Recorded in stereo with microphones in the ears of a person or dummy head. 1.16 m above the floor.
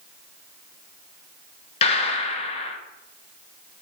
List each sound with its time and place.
1.8 s a gunshot: 40° left (ahead or behind), 1.0 m